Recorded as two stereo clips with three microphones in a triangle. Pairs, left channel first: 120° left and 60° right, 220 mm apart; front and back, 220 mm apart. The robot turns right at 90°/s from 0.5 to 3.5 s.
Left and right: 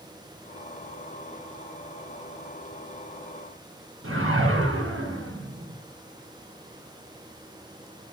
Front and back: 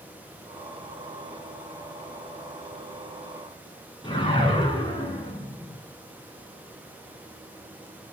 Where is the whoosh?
70° right, 2.5 m.